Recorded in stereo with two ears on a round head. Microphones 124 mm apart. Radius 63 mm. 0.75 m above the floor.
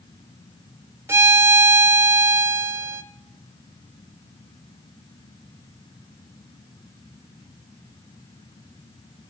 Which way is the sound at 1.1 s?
20° right (ahead or behind).